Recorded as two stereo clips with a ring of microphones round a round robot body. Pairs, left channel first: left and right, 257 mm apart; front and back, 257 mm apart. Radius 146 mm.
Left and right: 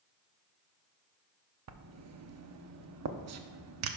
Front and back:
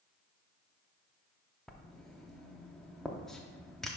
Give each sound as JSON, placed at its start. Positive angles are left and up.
{"t": 1.7, "sound": "writing", "azimuth_deg": -90, "distance_m": 0.7}